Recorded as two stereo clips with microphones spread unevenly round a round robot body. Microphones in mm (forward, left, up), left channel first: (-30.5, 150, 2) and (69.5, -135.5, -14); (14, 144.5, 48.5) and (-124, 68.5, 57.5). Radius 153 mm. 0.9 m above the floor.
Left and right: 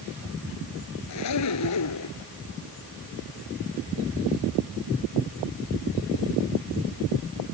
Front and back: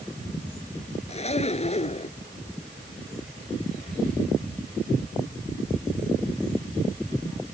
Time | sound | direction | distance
1.1 | a zipper | 75° left | ?